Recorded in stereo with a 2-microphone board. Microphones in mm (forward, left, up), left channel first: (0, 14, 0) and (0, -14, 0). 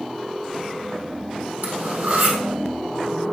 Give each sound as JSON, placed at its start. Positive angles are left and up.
{"t": 1.6, "sound": "cutlery clinking", "side_deg": -75, "distance_m": 2.5}